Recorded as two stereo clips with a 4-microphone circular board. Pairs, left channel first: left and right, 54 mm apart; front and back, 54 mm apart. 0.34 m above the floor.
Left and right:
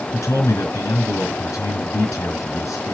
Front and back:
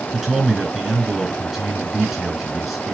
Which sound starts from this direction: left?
A man speaking, at 0.1 s.